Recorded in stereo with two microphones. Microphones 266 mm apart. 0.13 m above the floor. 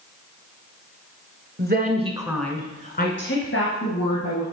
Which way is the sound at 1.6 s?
40° right (ahead or behind).